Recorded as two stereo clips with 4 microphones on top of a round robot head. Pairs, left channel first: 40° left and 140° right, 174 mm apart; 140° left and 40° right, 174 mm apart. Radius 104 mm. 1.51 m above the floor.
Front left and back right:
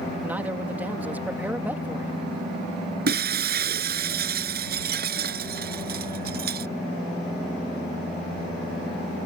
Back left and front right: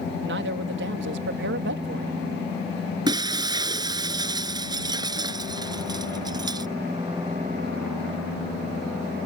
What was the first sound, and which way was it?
A man speaking, 60° right.